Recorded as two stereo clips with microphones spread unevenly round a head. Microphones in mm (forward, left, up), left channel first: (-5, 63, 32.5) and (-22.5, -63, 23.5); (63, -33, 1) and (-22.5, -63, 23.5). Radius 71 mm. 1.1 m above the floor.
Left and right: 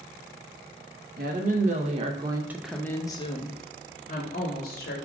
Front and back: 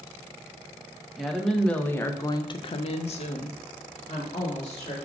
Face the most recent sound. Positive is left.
turn(degrees=55)